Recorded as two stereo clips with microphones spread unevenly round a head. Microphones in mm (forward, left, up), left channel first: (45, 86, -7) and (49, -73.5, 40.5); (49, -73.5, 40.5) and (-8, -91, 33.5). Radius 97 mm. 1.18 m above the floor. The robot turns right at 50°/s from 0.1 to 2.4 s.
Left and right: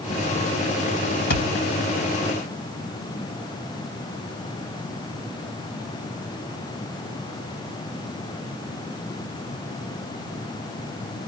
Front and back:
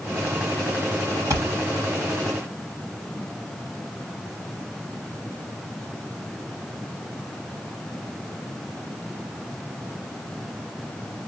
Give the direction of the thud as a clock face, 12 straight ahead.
7 o'clock.